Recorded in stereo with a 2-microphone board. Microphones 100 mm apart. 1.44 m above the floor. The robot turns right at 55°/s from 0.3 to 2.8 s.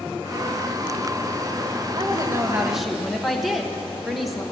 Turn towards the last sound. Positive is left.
turn(degrees=0)